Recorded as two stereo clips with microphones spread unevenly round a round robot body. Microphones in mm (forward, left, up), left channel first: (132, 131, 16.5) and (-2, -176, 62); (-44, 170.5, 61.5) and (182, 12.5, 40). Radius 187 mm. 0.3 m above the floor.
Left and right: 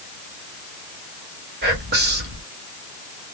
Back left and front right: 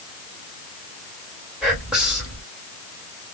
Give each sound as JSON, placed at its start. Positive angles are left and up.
{"t": 1.6, "sound": "whispering", "azimuth_deg": -105, "distance_m": 1.4}